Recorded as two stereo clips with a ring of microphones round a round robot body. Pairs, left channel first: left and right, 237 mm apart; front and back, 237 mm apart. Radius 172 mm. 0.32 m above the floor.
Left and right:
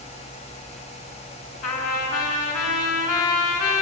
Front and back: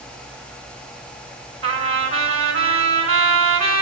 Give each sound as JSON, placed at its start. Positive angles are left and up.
{"t": 1.6, "sound": "a trumpet", "azimuth_deg": 155, "distance_m": 4.5}